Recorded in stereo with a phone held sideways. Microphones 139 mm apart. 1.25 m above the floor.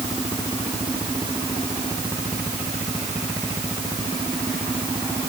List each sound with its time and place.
Only background noise.